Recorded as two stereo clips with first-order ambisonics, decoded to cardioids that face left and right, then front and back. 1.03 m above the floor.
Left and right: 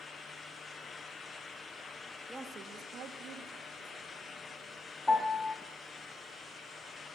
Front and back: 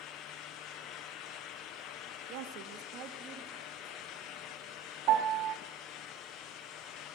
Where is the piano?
170° left, 1.5 m.